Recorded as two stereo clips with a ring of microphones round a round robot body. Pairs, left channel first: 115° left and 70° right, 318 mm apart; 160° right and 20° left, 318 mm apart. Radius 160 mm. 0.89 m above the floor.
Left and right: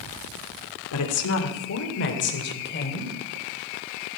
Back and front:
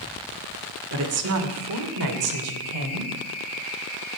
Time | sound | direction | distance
0.9 | a woman speaking | 70° left | 2.5 m